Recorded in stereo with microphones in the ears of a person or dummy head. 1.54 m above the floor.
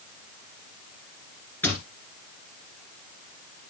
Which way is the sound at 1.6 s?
10° left (ahead or behind).